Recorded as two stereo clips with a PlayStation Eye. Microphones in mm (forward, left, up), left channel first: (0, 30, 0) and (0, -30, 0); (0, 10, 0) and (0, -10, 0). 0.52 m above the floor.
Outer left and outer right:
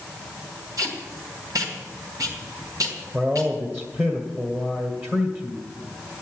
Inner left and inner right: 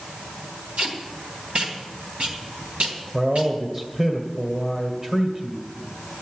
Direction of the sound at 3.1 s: 35° right (ahead or behind).